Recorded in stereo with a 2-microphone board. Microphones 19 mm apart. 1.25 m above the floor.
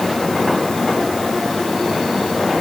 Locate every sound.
Only background noise.